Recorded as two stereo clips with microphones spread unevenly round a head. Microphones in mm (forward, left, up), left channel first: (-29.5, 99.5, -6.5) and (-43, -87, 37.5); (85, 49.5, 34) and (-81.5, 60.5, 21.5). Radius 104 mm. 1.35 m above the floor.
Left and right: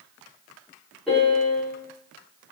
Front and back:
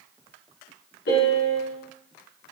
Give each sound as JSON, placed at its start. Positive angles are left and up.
{"t": 1.1, "sound": "a piano", "azimuth_deg": 0, "distance_m": 3.5}